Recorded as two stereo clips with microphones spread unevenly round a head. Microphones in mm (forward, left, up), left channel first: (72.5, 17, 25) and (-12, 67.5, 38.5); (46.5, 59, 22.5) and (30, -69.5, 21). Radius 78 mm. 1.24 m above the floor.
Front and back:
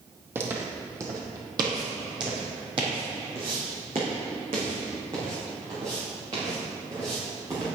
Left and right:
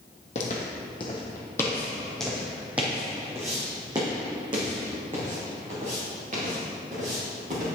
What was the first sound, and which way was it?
Footsteps, 105° left.